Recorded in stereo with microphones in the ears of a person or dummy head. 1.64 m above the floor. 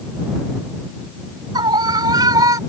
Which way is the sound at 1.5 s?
20° right (ahead or behind).